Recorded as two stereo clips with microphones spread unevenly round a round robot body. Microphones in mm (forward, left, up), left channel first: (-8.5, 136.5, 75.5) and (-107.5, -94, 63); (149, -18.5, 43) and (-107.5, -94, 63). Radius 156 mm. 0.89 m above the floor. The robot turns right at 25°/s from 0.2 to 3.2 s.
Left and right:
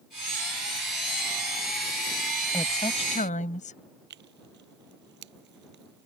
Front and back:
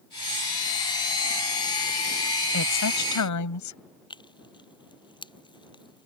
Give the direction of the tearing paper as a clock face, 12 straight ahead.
2 o'clock.